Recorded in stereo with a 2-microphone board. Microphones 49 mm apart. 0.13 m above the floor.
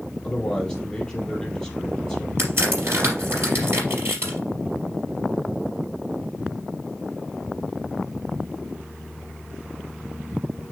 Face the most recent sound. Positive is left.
turn(degrees=-55)  # may be behind; listen again after turning